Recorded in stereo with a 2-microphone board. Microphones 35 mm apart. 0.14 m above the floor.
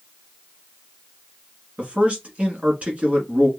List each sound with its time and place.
1.8 s a man speaking: 35° right (ahead or behind), 1.4 m